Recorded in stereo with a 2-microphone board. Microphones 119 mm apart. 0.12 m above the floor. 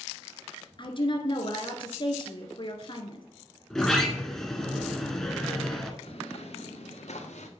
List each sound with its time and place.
0.8 s a woman speaking: 45° left (ahead or behind), 1.9 m
3.7 s a sliding door: 5° left (ahead or behind), 1.7 m
6.0 s footsteps: 55° left (ahead or behind), 3 m; by 7.5 s 75° left (ahead or behind), 2.5 m